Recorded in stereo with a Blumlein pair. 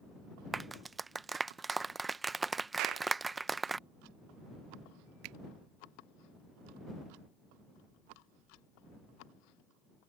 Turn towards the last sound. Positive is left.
turn(degrees=-40)